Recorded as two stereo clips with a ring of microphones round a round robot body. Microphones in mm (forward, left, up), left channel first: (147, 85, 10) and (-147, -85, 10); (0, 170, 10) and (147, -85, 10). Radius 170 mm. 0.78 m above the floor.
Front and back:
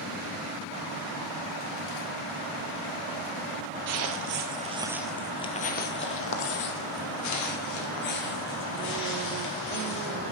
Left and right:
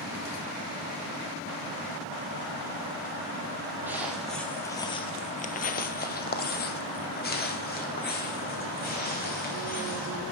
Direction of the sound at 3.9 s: 140° right.